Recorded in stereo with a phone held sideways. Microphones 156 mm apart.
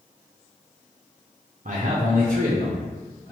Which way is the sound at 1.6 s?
50° right (ahead or behind).